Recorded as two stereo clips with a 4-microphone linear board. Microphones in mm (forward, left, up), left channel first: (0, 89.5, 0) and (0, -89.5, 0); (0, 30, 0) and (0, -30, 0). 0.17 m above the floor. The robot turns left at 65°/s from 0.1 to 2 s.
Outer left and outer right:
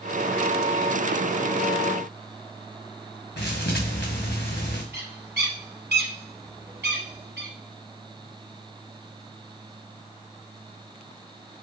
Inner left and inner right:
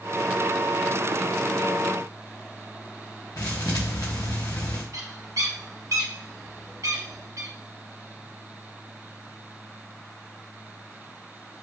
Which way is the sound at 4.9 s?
70° right (ahead or behind).